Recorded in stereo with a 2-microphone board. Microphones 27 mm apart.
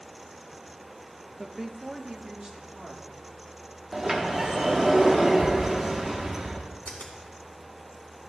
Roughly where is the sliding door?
Centre.